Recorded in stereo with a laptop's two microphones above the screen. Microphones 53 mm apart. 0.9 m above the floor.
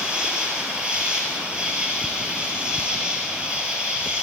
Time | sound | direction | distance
0.0 | an insect | 20° right (ahead or behind) | 6 m